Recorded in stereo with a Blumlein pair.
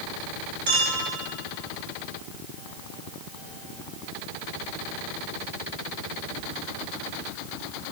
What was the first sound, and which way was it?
A clink, 55° right.